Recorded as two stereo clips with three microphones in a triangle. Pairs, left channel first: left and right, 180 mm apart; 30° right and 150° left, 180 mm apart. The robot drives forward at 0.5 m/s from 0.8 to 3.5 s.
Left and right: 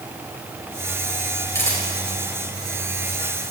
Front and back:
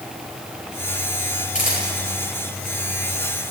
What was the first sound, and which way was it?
A camera shutter, 15° left.